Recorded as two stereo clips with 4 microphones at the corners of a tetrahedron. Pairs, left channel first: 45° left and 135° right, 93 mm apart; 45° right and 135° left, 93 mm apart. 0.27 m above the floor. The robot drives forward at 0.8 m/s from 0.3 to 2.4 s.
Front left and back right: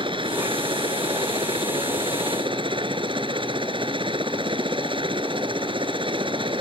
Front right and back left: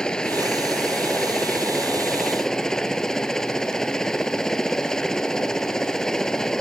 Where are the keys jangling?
No keys jangling in this recording.